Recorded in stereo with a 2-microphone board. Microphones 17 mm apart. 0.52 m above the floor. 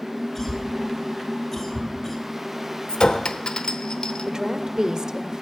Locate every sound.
0.3 s a cough: 30° left (ahead or behind), 3 m
2.9 s a clink: 70° left (ahead or behind), 0.8 m
4.3 s a woman speaking: 40° right (ahead or behind), 1.4 m